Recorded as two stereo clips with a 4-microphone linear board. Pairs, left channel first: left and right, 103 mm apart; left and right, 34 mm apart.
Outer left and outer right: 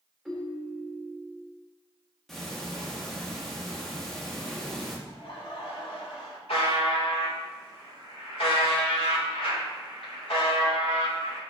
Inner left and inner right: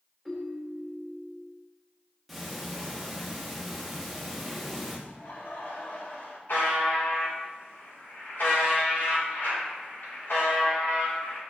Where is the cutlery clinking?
I don't hear cutlery clinking.